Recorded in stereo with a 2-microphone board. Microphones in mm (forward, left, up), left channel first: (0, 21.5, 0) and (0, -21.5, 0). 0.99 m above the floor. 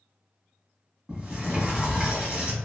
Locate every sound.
1.1 s a sliding door: 20° right (ahead or behind), 1.2 m